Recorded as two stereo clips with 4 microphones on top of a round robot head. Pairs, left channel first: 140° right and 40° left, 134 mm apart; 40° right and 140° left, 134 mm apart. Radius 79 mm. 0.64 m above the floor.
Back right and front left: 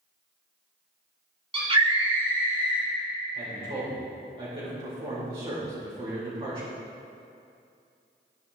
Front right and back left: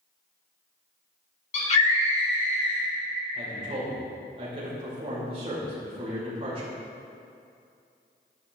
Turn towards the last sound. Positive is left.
turn(degrees=95)